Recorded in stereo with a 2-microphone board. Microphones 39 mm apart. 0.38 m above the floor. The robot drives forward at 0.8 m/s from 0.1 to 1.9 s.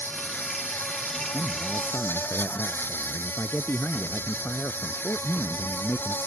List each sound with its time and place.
0.0 s an insect: 65° left (ahead or behind); by 6.3 s 60° left (ahead or behind)
1.3 s a man speaking: 65° left (ahead or behind); by 6.2 s 70° left (ahead or behind)